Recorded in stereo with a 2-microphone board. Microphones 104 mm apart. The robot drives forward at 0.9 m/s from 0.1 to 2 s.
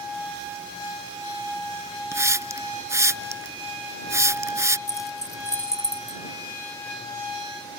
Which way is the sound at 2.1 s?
30° right (ahead or behind).